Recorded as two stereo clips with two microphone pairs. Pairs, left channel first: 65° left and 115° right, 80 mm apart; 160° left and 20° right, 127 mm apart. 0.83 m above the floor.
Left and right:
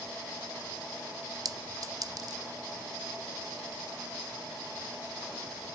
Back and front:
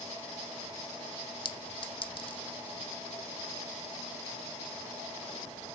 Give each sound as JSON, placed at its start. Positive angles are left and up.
{"t": 1.4, "sound": "a clink", "azimuth_deg": -150, "distance_m": 0.5}